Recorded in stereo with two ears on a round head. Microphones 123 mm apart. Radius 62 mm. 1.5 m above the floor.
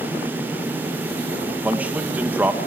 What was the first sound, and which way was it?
A man speaking, 10° right (ahead or behind).